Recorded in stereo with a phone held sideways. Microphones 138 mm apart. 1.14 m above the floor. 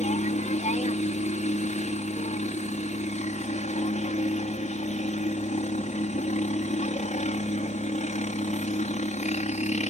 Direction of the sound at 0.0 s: 60° left (ahead or behind).